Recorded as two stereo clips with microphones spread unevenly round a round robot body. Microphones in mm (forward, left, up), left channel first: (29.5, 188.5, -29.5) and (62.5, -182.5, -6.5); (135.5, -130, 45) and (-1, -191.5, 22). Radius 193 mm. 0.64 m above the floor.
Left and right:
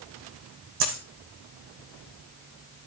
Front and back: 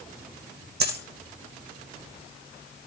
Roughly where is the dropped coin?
Behind right.